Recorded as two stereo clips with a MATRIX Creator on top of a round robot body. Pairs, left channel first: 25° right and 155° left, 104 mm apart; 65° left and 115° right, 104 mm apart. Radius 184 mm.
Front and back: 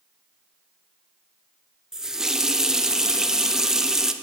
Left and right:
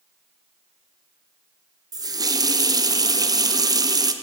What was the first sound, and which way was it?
A running tap, 120° right.